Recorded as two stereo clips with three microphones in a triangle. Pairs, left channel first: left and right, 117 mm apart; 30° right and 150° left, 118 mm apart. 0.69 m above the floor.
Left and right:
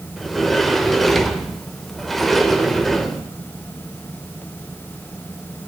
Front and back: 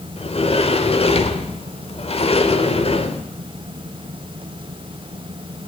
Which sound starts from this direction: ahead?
A sliding door, at 0.2 s.